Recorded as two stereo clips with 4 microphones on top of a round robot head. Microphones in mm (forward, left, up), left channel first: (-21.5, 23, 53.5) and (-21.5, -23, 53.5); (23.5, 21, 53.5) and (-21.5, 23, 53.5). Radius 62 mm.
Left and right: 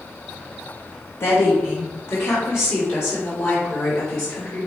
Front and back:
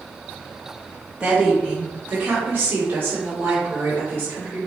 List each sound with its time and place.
1.2 s a woman speaking: 115° left, 2.5 m; by 4.7 s 135° left, 4 m